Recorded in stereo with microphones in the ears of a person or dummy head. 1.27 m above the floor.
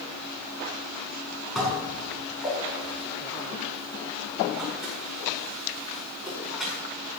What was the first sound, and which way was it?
Dishes clattering, centre (ahead or behind).